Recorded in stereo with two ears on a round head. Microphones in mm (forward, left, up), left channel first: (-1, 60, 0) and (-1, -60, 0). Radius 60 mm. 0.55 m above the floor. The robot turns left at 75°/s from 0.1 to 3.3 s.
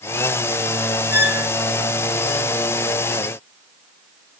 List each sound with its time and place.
1.1 s a squeak: 10° right (ahead or behind), 0.5 m; by 1.5 s 30° right (ahead or behind), 0.5 m